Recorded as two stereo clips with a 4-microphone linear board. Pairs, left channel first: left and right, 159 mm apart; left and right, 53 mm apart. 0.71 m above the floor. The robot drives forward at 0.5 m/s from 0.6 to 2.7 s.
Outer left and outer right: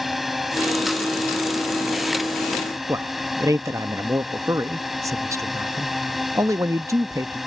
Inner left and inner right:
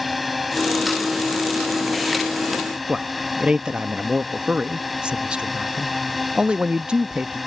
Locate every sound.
0.0 s a drone: centre (ahead or behind)
2.9 s a man speaking: 20° right (ahead or behind)